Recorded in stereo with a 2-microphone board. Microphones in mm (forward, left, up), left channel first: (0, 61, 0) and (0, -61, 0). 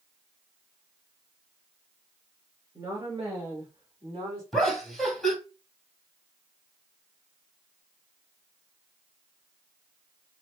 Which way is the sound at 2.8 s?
30° right (ahead or behind).